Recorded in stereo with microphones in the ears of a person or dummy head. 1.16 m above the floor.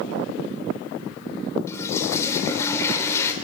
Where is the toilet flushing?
20° left (ahead or behind), 3.5 m.